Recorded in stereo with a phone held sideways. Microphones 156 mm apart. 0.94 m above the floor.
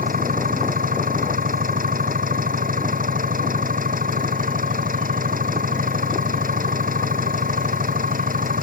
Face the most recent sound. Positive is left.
turn(degrees=-70)  # may be behind; listen again after turning